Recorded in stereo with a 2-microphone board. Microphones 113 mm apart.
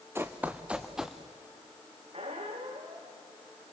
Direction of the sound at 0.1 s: 20° right (ahead or behind).